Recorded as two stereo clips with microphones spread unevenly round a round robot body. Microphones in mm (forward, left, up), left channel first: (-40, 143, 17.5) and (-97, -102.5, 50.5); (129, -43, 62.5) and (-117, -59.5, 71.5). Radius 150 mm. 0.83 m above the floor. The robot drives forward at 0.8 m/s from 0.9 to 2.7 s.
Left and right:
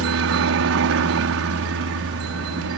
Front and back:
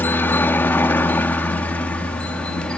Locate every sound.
0.0 s a helicopter: 75° right; by 2.8 s 80° right